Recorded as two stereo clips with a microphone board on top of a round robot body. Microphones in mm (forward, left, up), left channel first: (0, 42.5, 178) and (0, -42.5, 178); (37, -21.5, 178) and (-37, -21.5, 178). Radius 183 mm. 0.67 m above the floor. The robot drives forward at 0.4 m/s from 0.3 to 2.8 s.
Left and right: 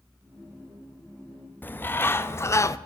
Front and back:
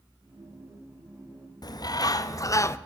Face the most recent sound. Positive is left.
turn(degrees=45)